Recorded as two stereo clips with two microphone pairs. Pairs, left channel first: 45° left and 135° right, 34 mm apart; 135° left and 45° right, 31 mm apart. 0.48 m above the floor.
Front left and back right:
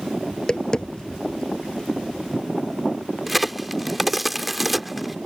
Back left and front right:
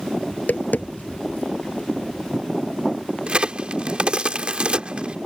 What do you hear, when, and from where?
0.3 s tapping: 115° left
3.3 s a crack: 50° right